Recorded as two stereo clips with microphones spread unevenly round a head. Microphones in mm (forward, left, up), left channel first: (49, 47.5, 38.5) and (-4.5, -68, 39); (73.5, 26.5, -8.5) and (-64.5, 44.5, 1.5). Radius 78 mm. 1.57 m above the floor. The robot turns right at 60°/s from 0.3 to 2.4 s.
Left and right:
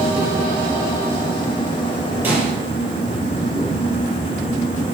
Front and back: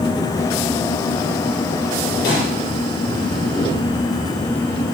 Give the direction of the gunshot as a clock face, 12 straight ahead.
1 o'clock.